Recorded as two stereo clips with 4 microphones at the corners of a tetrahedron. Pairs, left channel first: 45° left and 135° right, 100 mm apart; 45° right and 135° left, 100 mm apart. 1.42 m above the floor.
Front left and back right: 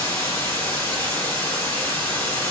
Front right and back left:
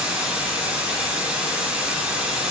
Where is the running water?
75° left, 1.2 m.